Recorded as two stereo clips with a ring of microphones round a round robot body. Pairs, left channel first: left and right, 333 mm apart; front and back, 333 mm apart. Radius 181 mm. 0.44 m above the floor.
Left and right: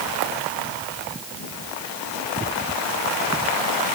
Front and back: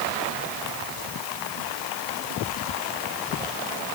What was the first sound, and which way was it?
Only background noise.